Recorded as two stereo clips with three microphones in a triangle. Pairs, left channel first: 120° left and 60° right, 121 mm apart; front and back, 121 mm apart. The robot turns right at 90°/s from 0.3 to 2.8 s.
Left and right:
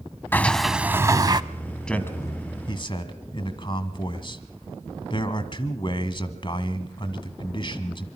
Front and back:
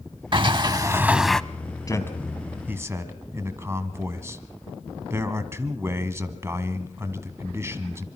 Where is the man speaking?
40° left, 1.6 m; by 8.1 s 125° left, 1.6 m.